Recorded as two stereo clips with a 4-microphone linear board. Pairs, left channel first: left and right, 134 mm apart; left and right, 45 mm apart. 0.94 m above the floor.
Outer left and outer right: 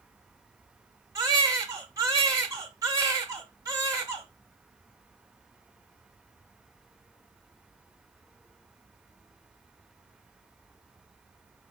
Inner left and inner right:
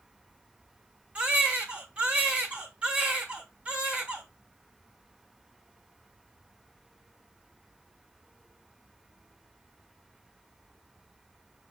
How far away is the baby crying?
About 0.9 m.